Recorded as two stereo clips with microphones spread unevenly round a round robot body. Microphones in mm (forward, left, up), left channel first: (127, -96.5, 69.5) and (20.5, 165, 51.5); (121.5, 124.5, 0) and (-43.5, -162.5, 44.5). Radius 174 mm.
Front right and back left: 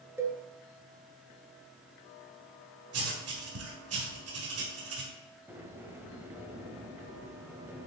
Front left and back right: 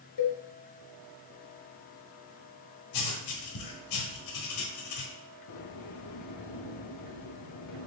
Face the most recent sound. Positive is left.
turn(degrees=30)